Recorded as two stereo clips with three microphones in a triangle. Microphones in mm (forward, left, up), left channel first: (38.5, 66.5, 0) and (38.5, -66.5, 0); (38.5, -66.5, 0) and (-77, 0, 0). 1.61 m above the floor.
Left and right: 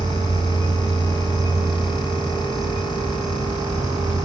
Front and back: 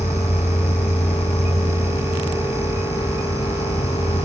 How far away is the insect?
About 2.5 m.